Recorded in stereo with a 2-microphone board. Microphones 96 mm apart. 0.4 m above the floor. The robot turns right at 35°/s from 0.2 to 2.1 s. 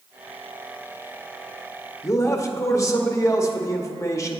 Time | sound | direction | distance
2.0 | a man speaking | 30° left (ahead or behind) | 0.9 m